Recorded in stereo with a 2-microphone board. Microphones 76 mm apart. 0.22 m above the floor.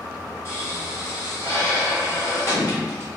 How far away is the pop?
About 1.4 m.